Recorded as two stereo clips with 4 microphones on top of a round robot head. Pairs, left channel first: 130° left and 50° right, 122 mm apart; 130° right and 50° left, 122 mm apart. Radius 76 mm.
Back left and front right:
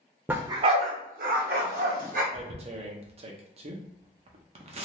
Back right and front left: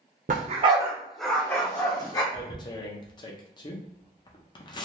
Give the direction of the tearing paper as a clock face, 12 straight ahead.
3 o'clock.